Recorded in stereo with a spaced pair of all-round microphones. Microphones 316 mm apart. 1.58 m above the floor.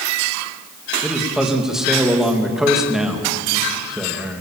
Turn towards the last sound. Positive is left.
turn(degrees=0)  # may be behind; listen again after turning